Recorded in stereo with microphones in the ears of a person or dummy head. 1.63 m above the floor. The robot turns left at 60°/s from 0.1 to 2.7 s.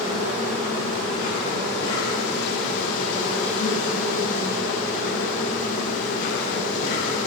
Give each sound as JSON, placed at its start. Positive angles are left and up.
{"t": 0.0, "sound": "an insect", "azimuth_deg": -150, "distance_m": 2.0}